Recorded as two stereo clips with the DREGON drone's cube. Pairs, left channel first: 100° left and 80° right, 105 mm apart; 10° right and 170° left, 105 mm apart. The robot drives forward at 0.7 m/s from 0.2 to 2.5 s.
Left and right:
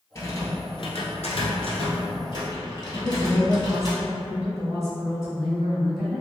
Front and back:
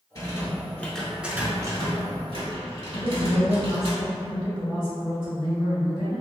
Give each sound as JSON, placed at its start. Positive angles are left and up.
{"t": 0.1, "sound": "a rattle", "azimuth_deg": 40, "distance_m": 1.0}
{"t": 2.9, "sound": "a woman speaking", "azimuth_deg": -165, "distance_m": 1.8}